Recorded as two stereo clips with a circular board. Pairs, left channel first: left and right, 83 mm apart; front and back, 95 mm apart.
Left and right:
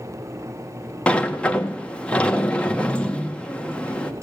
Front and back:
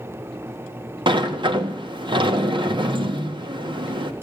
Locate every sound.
1.1 s a sliding door: 165° left, 1.3 m